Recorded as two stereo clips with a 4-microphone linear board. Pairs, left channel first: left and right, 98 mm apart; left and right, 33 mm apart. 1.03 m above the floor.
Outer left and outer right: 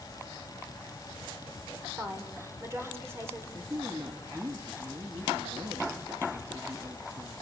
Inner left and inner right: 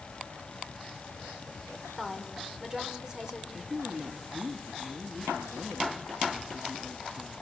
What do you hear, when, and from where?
2.0 s a woman speaking: 25° right (ahead or behind), 4.5 m
3.5 s a woman speaking: 35° right (ahead or behind), 1.7 m